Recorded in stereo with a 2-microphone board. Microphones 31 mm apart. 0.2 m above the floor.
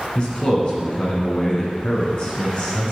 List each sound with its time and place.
0.1 s a man speaking: 40° left (ahead or behind), 2.5 m